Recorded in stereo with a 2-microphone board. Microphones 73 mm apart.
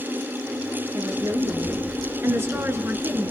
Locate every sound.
0.9 s a woman speaking: 45° right (ahead or behind), 5.5 m; by 3.3 s 25° right (ahead or behind), 4 m